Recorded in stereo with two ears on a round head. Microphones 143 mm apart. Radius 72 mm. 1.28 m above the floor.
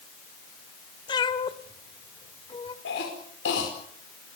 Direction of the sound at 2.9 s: 75° left (ahead or behind).